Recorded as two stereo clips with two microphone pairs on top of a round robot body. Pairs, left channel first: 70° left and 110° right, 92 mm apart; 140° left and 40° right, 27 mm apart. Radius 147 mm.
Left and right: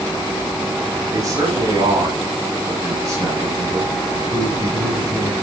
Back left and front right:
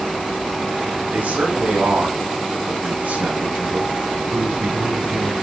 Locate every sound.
1.1 s a man speaking: 55° right, 8 m; by 5.3 s 50° right, 6 m